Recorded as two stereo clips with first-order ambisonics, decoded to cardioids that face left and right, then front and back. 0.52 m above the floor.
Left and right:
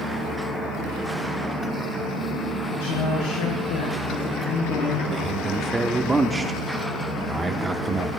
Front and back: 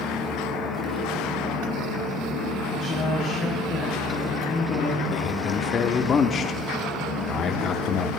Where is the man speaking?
20° right, 0.8 m.